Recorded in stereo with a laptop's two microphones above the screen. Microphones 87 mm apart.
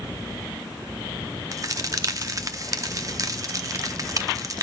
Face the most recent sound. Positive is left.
turn(degrees=-40)  # may be behind; listen again after turning